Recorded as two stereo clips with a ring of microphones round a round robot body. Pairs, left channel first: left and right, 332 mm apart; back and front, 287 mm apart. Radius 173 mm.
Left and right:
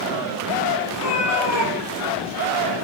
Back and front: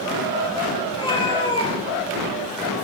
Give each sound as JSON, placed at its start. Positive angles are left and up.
{"t": 0.9, "sound": "a cat meowing", "azimuth_deg": 105, "distance_m": 6.0}